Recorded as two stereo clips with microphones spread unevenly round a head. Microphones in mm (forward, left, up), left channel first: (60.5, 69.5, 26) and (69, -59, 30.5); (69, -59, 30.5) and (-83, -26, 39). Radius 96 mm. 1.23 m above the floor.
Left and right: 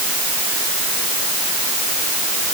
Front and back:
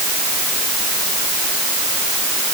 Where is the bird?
No bird in this recording.